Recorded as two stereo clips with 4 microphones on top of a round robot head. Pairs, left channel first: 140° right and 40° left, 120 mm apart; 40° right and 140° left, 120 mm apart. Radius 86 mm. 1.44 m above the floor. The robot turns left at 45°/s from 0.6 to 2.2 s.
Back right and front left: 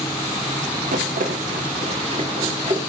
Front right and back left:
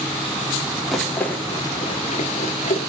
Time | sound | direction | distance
0.9 | a rattle | 50° left | 3 m